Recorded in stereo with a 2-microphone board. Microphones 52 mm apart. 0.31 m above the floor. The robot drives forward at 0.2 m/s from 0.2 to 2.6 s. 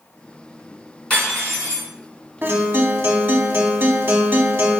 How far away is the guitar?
About 0.6 m.